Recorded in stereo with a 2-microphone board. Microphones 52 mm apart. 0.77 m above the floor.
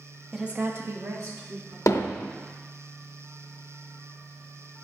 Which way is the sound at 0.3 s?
10° right (ahead or behind).